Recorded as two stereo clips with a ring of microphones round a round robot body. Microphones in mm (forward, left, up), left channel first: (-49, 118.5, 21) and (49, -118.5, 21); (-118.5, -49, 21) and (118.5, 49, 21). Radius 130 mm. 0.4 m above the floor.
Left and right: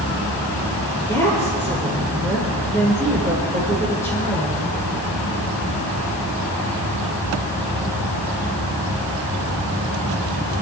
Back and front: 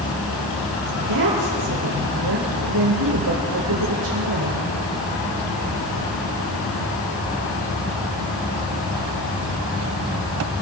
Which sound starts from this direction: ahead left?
A woman speaking, at 1.0 s.